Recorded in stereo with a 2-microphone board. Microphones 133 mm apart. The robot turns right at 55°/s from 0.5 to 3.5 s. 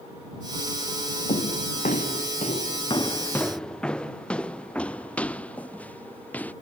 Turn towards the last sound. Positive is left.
turn(degrees=10)  # may be behind; listen again after turning